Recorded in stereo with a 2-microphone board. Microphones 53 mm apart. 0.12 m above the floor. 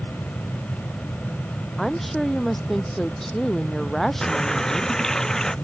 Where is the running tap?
10° left (ahead or behind).